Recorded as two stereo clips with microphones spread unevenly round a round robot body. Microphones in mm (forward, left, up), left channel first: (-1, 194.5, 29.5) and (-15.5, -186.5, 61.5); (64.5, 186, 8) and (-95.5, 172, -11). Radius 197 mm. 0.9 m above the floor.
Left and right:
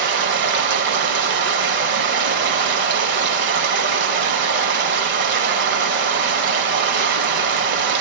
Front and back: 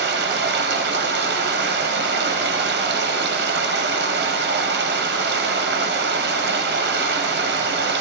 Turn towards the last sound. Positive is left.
turn(degrees=-155)